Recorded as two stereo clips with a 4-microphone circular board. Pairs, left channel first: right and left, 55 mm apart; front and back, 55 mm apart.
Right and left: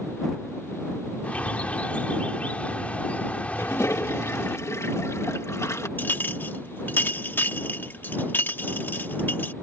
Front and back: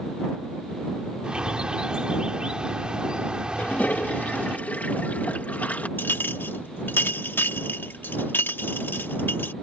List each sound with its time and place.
1.2 s a bird: 125° right
3.6 s a toilet flushing: 60° right
6.0 s a clink: 45° right